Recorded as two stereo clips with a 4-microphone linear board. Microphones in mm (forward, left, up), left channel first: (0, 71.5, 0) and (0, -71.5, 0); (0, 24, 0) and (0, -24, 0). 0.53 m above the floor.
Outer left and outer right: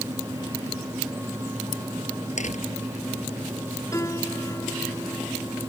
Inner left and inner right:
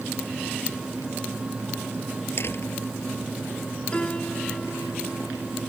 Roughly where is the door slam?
Left.